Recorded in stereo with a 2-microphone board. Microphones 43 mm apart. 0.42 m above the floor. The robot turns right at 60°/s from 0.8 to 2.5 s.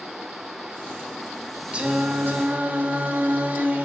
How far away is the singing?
About 0.8 m.